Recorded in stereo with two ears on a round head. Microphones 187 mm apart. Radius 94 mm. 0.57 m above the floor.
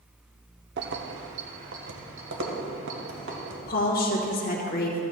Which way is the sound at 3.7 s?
45° left (ahead or behind).